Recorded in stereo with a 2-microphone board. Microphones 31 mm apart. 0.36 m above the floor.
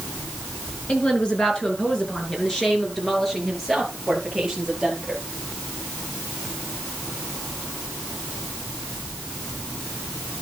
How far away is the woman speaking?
About 4.5 m.